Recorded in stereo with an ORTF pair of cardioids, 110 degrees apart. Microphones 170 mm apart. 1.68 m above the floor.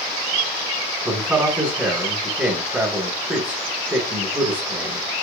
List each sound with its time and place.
1.1 s a man speaking: 10° right, 2 m